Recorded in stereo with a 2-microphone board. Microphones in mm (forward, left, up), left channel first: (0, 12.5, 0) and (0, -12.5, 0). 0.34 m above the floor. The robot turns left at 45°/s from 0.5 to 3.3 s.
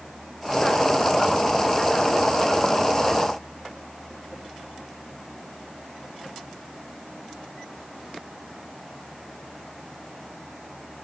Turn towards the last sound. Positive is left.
No sound to turn to.